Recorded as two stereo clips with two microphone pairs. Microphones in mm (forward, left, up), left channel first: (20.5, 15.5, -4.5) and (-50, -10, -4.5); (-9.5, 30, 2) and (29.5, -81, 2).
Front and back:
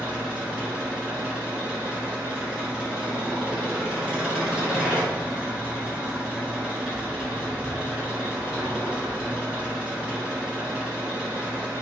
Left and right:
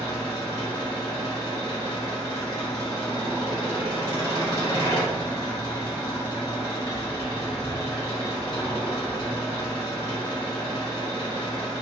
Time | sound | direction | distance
0.0 | an engine running | 135° left | 1.2 m